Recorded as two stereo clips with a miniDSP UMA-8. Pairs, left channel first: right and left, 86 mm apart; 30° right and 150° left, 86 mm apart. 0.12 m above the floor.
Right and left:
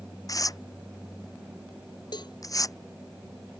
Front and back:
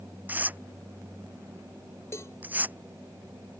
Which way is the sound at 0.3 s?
140° right.